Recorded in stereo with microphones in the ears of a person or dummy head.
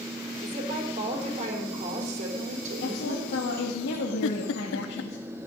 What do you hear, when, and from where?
0.4 s a woman speaking: 40° right (ahead or behind), 4 m
2.8 s a woman speaking: 65° left (ahead or behind), 2.5 m
4.2 s a giggle: 75° left (ahead or behind), 0.7 m